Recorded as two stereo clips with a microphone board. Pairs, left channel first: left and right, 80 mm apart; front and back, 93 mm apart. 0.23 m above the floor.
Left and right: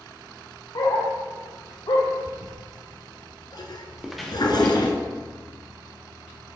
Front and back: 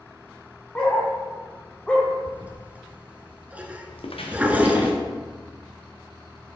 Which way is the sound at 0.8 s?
70° left.